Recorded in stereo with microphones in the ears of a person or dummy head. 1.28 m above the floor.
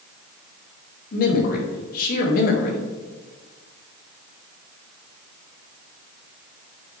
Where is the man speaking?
50° left (ahead or behind), 1.3 m.